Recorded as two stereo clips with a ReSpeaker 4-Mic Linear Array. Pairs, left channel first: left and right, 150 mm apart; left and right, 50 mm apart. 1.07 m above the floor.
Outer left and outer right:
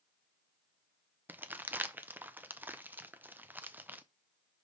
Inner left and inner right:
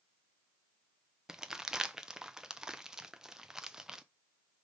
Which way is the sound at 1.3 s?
10° right (ahead or behind).